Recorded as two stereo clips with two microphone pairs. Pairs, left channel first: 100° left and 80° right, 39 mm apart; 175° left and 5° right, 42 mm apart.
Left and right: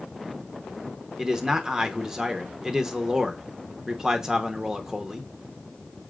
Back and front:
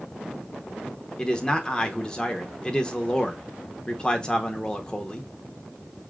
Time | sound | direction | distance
1.2 | a man speaking | 135° right | 0.7 m